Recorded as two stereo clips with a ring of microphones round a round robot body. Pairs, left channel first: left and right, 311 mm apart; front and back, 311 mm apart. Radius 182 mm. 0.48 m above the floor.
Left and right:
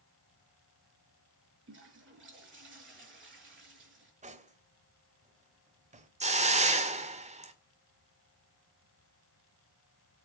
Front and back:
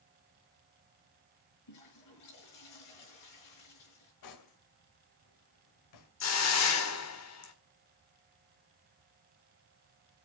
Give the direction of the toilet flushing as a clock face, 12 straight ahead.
1 o'clock.